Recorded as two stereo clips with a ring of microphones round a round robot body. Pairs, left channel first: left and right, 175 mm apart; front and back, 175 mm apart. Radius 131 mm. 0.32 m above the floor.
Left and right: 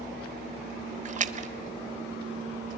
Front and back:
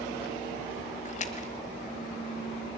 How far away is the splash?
About 0.8 m.